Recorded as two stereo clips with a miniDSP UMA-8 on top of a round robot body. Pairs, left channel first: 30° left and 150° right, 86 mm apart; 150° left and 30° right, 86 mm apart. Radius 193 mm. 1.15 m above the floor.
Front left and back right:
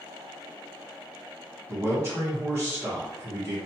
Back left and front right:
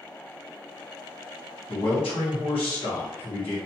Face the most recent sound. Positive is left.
turn(degrees=150)